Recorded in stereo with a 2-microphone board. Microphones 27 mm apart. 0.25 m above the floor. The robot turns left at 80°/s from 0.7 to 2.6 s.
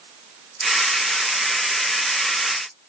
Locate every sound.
Only background noise.